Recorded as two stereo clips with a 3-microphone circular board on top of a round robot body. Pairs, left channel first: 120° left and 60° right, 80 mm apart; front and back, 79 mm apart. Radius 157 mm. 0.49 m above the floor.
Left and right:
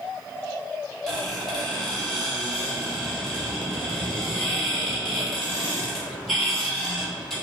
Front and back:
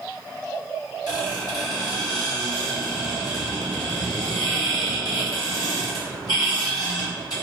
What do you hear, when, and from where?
1.1 s a squeak: 30° left, 1.7 m